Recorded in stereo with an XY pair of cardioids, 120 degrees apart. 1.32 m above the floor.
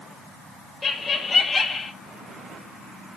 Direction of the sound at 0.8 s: 25° left.